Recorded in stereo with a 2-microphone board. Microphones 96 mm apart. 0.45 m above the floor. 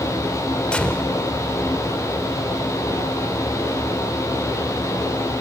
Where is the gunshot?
10° left (ahead or behind), 0.8 m.